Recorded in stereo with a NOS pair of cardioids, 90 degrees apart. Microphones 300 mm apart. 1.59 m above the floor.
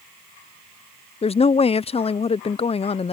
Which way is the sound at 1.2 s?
20° left.